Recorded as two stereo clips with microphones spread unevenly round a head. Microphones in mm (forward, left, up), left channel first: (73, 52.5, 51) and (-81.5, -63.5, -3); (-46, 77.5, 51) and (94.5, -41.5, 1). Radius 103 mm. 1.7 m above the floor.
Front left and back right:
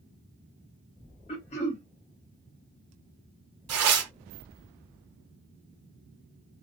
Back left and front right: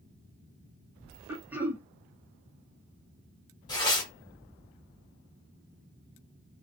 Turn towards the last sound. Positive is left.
turn(degrees=-160)